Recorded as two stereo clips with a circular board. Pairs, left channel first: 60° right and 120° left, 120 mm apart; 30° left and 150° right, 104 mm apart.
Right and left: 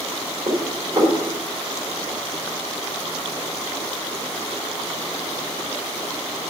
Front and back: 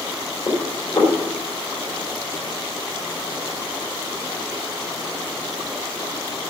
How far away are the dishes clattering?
About 2.5 m.